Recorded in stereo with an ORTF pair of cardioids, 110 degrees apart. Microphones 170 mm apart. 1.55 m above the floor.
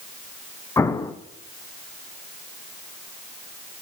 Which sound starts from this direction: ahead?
An explosion, at 0.8 s.